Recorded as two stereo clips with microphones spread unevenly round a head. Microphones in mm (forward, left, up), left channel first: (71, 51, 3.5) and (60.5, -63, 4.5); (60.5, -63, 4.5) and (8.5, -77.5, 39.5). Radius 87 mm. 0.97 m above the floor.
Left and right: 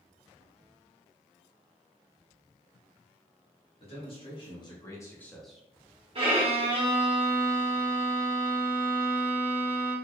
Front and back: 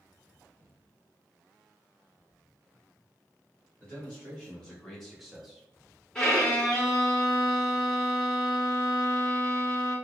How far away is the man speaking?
About 1.6 m.